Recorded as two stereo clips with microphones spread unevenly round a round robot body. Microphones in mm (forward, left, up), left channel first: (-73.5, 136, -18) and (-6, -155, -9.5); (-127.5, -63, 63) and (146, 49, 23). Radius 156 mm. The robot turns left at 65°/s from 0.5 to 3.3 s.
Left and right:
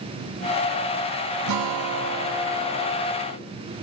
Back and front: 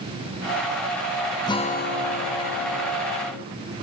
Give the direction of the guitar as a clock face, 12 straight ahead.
3 o'clock.